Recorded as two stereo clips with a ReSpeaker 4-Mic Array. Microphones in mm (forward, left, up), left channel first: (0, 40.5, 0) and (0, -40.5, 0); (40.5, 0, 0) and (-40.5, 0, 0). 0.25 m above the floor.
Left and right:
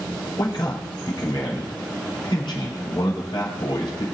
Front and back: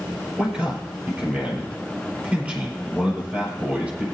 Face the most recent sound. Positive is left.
turn(degrees=105)